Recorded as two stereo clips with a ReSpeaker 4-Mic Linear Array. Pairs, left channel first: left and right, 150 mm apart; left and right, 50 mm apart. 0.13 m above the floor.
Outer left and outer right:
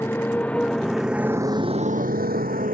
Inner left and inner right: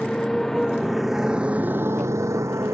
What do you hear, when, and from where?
0.0 s a motorcycle: 15° left (ahead or behind); by 2.8 s 65° right (ahead or behind)